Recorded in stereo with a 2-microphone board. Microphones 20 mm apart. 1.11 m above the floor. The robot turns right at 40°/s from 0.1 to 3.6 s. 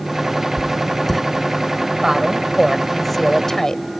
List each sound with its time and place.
0.6 s writing: 30° left (ahead or behind); by 1.2 s 5° left (ahead or behind)
2.0 s a woman speaking: 40° right; by 3.8 s 25° left